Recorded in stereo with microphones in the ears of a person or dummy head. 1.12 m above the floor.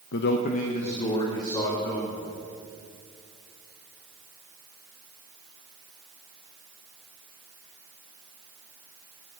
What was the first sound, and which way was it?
A man speaking, 65° left (ahead or behind).